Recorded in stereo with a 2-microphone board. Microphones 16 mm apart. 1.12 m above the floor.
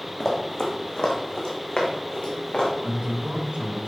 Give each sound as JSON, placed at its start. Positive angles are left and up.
{"t": 0.2, "sound": "running footsteps", "side_deg": 35, "distance_m": 3.0}
{"t": 2.8, "sound": "a man speaking", "side_deg": -75, "distance_m": 4.5}